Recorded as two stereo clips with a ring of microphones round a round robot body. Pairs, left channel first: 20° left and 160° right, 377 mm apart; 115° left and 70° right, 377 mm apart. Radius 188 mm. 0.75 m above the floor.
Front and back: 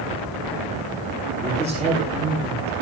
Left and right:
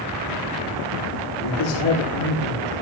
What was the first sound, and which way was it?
A man speaking, 130° left.